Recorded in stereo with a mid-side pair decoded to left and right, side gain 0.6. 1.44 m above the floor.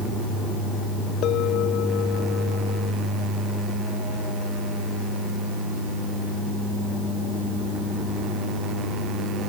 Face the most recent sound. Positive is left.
turn(degrees=60)